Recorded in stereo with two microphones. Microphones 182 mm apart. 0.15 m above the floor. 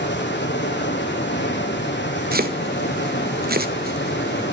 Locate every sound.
0.0 s running water: 80° left, 2.5 m
2.3 s chopping: 55° right (ahead or behind), 1.0 m